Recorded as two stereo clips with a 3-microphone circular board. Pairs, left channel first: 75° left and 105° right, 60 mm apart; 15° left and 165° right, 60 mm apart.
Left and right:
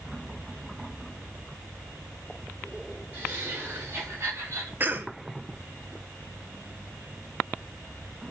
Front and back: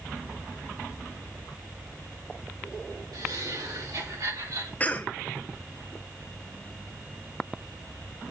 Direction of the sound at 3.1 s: 165° right.